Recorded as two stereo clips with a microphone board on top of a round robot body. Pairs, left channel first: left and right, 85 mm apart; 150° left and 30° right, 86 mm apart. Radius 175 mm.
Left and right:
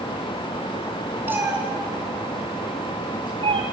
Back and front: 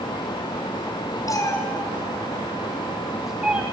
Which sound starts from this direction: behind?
A cat meowing, at 1.3 s.